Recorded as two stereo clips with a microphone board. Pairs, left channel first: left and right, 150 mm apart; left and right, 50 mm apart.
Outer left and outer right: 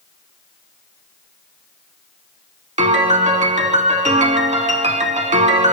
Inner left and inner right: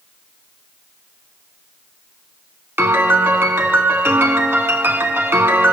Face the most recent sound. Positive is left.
turn(degrees=-55)  # may be behind; listen again after turning